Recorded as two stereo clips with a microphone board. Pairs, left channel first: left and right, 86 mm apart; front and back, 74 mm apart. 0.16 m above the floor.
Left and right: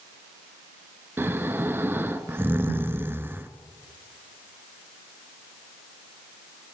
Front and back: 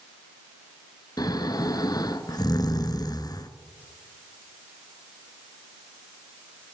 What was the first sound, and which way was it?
Snoring, 25° right.